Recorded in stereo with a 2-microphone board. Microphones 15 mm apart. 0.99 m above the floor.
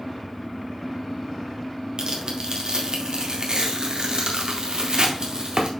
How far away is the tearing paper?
About 1.7 m.